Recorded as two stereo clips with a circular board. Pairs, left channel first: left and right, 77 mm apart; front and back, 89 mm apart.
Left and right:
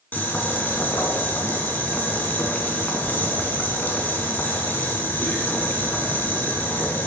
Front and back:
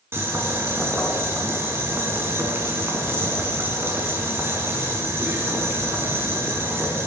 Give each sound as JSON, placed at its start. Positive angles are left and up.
{"t": 0.1, "sound": "boiling", "azimuth_deg": 140, "distance_m": 1.7}